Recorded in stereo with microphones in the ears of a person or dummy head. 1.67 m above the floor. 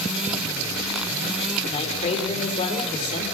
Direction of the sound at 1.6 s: 40° left (ahead or behind).